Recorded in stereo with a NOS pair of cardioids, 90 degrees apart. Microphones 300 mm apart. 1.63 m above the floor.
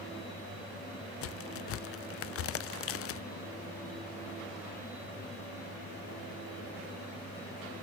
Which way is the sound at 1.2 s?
50° left.